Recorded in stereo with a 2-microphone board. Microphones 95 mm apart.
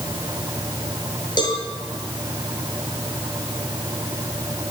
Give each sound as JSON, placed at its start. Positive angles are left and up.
{"t": 1.4, "sound": "a cowbell", "side_deg": 50, "distance_m": 8.0}